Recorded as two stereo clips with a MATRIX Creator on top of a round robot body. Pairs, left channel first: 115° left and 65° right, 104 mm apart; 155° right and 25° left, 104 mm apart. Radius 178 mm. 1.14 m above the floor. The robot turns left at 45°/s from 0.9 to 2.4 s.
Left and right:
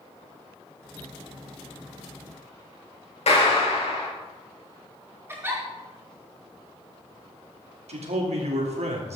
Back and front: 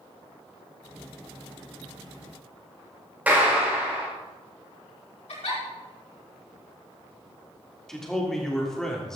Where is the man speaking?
70° right, 3 m.